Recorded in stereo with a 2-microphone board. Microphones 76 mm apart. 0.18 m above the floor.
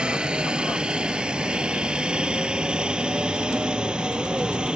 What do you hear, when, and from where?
0.0 s a helicopter: 10° right (ahead or behind)